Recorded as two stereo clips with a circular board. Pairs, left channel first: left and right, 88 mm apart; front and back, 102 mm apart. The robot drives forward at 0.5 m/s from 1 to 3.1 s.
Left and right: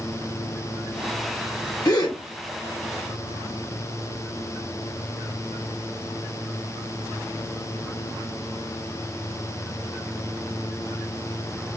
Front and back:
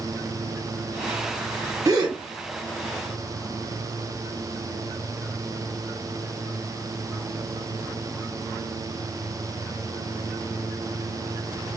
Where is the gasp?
130° left, 1.3 m; by 2.2 s 135° left, 1.4 m.